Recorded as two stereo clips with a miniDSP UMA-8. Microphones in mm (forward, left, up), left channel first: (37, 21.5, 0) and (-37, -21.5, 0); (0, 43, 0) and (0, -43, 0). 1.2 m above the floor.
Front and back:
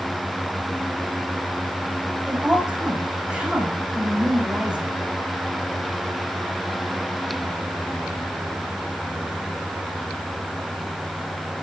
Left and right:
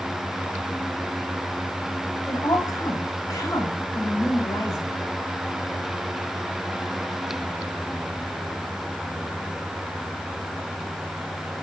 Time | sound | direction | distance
2.3 | a woman speaking | 130° left | 5.5 m